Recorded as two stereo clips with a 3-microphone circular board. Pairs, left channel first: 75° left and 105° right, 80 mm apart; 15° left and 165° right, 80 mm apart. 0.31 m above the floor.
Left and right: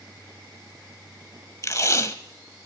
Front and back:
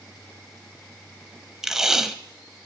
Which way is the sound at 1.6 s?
115° left.